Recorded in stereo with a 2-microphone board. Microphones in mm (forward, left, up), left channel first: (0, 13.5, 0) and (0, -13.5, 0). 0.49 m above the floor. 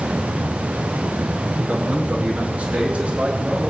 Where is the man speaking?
40° right (ahead or behind), 5 m; by 3.7 s 55° right (ahead or behind), 7 m.